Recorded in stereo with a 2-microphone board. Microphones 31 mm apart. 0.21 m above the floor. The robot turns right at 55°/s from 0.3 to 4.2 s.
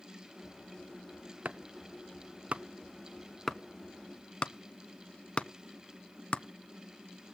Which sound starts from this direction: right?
Chopping, at 1.4 s.